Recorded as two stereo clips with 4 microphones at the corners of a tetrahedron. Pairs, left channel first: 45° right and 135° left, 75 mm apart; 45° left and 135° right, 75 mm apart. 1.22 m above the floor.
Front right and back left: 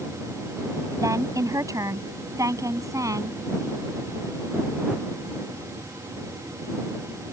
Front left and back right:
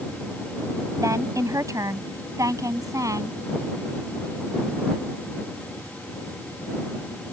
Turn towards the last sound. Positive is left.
turn(degrees=180)